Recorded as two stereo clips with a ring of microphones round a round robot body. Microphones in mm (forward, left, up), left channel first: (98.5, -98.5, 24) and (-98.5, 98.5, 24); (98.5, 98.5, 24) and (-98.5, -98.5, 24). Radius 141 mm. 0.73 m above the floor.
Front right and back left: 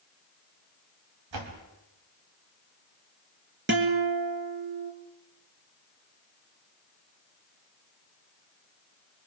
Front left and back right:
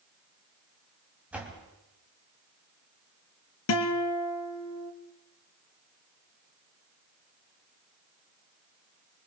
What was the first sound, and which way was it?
A door slam, 140° left.